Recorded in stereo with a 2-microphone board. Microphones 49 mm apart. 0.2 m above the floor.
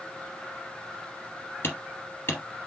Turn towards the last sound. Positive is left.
turn(degrees=50)  # may be behind; listen again after turning